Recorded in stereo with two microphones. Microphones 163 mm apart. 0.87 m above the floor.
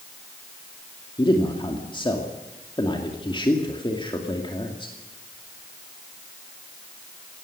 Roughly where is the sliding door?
No sliding door in this recording.